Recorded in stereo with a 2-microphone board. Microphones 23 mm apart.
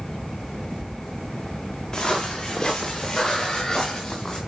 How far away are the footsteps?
About 7.5 m.